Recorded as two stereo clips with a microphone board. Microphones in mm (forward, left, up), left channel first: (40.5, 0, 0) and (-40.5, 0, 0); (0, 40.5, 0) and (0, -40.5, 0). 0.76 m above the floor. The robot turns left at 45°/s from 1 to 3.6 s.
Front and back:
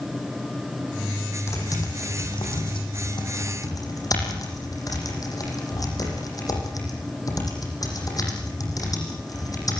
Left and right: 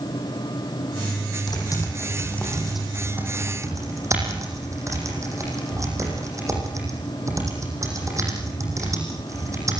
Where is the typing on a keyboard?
55° left, 9.5 m; by 9.8 s 40° right, 9.5 m.